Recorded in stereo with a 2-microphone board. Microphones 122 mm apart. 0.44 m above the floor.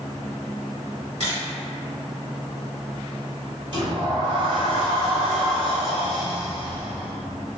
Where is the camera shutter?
70° right (ahead or behind), 1.8 m.